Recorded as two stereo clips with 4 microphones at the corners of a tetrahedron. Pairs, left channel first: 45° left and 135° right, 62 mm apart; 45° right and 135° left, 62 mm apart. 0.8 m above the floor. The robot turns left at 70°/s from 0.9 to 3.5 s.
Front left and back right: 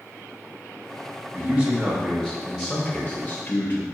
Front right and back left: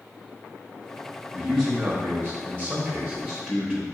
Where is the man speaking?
150° right, 0.9 m; by 3.8 s 55° left, 0.9 m.